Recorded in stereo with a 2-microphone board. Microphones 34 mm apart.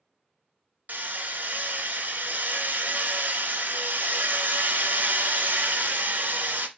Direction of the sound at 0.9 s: 55° right (ahead or behind).